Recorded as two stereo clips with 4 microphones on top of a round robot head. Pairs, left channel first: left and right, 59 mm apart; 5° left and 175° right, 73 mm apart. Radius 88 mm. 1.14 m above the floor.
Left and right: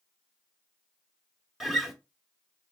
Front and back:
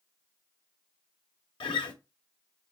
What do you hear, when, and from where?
1.6 s a guitar: 5° right, 1.0 m